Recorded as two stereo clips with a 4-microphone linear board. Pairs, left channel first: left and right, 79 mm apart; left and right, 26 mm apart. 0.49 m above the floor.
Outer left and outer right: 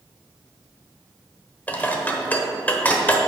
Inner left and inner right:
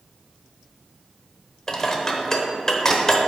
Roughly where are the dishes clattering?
Centre.